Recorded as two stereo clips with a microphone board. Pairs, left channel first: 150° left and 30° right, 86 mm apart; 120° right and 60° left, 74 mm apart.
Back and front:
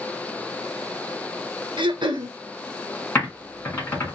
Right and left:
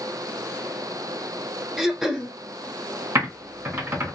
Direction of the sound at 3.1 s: 95° left.